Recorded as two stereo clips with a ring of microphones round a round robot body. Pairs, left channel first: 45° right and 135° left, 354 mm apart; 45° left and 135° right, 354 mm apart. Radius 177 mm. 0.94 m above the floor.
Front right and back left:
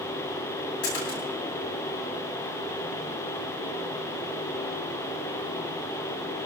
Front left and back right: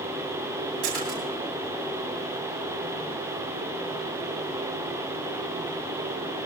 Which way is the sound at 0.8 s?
95° right.